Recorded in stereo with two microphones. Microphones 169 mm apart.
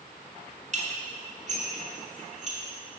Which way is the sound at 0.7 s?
45° right (ahead or behind).